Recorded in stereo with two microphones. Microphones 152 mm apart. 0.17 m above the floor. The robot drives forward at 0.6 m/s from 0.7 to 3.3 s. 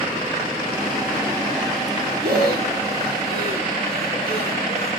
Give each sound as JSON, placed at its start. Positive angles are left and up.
{"t": 2.2, "sound": "breathing", "side_deg": -75, "distance_m": 6.0}